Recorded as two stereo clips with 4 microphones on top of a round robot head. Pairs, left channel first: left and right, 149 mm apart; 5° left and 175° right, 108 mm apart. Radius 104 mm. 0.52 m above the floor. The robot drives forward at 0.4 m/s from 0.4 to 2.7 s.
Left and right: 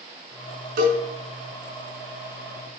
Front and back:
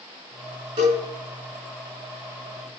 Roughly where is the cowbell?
Behind right.